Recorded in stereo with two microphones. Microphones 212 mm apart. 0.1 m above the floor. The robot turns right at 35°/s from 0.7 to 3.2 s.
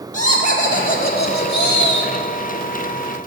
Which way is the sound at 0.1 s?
45° left.